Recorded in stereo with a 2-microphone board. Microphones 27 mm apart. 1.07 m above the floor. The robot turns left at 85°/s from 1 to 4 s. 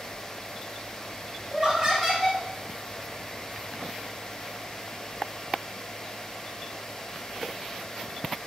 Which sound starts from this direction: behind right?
Laughter, at 1.5 s.